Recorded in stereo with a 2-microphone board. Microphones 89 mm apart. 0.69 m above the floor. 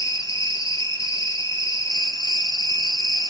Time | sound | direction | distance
0.0 | an insect | 40° left (ahead or behind) | 2.5 m